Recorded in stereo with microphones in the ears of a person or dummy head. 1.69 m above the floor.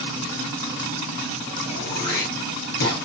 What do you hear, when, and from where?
1.6 s throat clearing: 55° left (ahead or behind), 4 m